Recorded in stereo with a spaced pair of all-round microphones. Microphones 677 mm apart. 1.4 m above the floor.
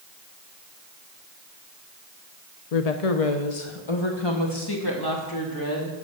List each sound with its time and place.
2.7 s a woman speaking: 65° left (ahead or behind), 0.8 m; by 6.0 s 25° left (ahead or behind), 2.5 m